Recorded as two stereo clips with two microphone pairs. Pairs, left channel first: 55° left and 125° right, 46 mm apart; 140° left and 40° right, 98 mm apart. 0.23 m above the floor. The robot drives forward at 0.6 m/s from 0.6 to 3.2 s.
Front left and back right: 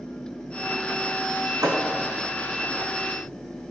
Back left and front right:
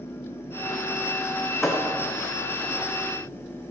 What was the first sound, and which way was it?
A thud, 130° right.